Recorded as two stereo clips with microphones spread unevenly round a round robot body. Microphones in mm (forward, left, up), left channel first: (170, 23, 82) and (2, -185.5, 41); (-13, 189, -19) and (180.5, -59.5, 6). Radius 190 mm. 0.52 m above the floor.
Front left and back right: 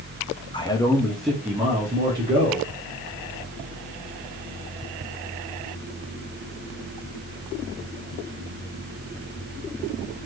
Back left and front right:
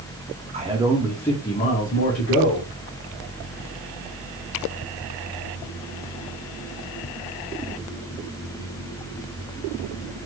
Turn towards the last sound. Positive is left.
turn(degrees=170)